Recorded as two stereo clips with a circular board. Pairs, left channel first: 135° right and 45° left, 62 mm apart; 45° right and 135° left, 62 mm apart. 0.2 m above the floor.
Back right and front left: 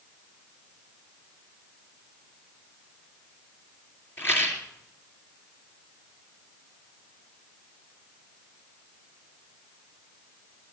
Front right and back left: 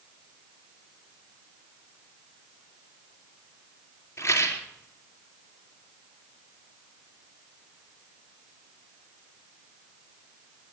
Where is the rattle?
90° right, 2.5 m.